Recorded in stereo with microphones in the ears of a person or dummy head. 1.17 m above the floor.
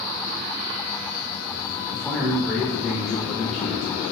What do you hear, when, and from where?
1.9 s a man speaking: 5° left (ahead or behind), 0.5 m